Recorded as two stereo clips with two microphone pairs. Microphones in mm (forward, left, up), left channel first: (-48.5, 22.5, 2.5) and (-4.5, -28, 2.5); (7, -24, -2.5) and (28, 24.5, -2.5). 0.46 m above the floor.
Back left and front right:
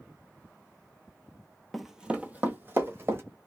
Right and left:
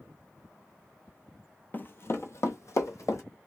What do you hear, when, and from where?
1.7 s running footsteps: 140° right, 0.5 m; by 3.2 s 100° right, 1.4 m